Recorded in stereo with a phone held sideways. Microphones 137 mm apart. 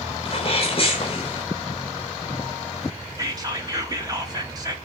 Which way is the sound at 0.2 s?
45° left (ahead or behind).